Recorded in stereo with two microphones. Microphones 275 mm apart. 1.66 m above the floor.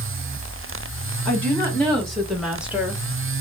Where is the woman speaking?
5° left (ahead or behind), 3 m; by 3.0 s 10° right (ahead or behind), 1.2 m.